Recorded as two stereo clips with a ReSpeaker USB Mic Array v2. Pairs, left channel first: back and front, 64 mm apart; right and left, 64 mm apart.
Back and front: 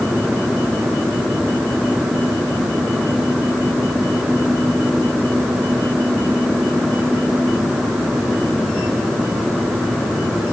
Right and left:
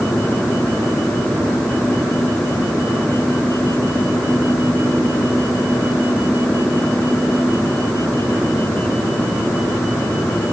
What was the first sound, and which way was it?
Only background noise.